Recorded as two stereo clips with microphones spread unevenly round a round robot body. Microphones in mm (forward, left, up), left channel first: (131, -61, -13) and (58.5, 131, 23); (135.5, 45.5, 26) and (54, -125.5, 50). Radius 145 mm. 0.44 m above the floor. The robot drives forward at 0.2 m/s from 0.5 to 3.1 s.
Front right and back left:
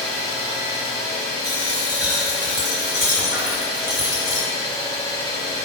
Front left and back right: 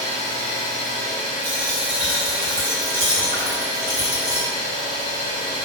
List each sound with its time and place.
0.0 s an engine running: 115° right, 1.7 m; by 5.7 s 130° right, 1.9 m
1.4 s a dropped coin: 150° right, 1.9 m; by 4.5 s 155° right, 2 m